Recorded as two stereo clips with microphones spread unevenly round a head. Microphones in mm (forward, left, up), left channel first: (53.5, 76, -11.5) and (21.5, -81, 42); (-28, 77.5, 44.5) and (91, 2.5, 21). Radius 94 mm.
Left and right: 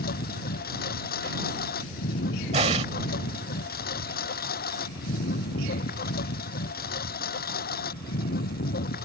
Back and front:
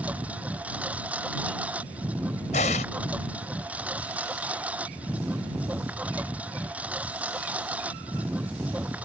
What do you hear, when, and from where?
0.0 s a lawn mower: 50° left
2.5 s an explosion: 160° right